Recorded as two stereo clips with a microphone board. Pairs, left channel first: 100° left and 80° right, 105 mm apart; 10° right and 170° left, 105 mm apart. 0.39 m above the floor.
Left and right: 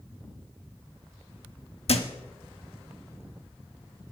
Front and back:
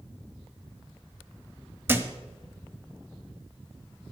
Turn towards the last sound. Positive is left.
turn(degrees=105)